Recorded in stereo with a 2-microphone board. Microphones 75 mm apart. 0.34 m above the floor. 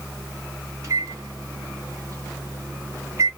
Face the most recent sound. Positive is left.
turn(degrees=-50)  # may be behind; listen again after turning